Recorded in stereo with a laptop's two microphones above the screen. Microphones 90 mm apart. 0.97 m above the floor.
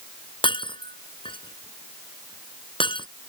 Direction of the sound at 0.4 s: 70° left (ahead or behind).